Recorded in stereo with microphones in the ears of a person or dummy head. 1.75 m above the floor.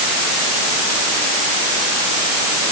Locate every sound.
Only background noise.